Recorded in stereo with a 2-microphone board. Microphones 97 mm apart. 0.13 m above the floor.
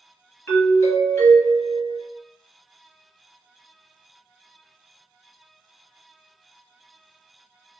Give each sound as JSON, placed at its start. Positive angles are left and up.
{"t": 0.5, "sound": "a doorbell", "side_deg": 20, "distance_m": 1.6}